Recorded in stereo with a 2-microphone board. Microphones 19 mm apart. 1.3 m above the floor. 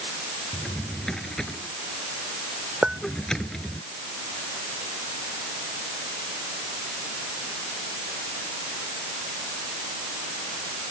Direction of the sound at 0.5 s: 35° left (ahead or behind).